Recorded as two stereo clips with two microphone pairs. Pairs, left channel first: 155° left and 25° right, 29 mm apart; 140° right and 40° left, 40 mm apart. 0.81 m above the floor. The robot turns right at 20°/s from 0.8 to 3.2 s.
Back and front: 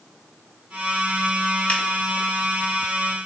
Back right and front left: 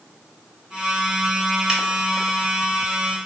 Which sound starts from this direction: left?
A finger snap, at 1.7 s.